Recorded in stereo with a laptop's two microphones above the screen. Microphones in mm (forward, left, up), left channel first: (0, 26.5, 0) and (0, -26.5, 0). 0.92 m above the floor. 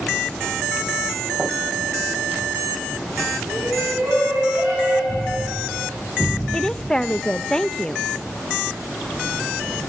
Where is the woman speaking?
15° left (ahead or behind), 0.7 m.